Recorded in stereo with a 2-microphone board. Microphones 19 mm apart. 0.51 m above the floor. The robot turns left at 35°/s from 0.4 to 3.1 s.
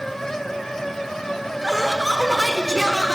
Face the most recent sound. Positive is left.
turn(degrees=140)